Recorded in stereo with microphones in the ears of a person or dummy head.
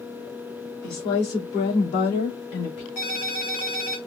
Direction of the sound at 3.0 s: 50° left (ahead or behind).